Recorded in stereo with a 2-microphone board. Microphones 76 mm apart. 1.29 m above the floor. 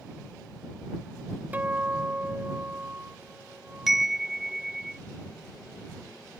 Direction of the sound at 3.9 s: 5° right (ahead or behind).